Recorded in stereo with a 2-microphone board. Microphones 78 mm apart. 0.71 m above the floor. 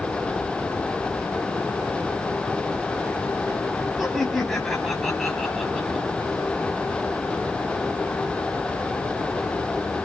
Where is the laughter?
Centre (ahead or behind), 6.5 m.